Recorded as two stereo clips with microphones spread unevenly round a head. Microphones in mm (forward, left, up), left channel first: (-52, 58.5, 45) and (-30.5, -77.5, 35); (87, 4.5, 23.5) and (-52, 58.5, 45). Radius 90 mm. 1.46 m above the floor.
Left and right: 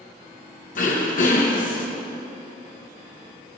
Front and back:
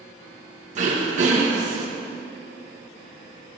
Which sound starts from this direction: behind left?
Throat clearing, at 0.8 s.